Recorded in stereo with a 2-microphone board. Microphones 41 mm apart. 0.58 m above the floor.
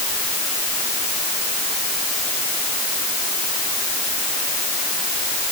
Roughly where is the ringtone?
I don't hear a ringtone.